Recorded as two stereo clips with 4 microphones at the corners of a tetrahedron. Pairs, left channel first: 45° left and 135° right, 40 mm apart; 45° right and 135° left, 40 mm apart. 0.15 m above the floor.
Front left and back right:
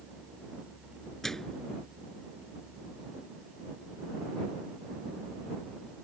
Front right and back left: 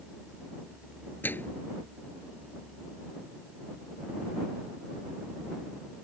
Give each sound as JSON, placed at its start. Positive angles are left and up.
{"t": 1.2, "sound": "a microwave", "azimuth_deg": -35}